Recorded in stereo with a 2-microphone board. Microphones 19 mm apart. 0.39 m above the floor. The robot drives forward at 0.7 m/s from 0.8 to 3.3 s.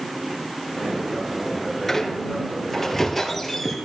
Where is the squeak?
15° left (ahead or behind), 2 m; by 3.8 s 10° left (ahead or behind), 3 m.